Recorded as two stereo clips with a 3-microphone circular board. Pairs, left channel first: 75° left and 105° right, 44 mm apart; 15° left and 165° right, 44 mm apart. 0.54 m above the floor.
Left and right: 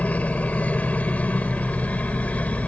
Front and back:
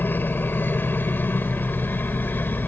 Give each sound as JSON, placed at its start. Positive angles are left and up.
{"t": 0.0, "sound": "a helicopter", "azimuth_deg": 30}